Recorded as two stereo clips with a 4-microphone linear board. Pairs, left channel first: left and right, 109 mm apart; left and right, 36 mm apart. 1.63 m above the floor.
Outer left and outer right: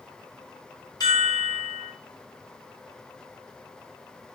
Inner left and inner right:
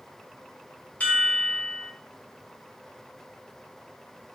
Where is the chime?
35° left (ahead or behind), 0.9 m.